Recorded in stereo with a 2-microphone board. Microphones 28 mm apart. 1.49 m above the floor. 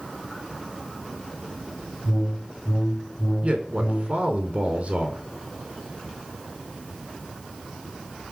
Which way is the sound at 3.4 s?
40° right (ahead or behind).